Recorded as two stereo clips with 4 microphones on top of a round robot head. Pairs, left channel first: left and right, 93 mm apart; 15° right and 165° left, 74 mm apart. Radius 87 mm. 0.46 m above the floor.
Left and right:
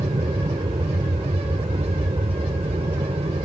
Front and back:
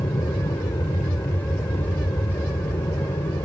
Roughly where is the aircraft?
Ahead right.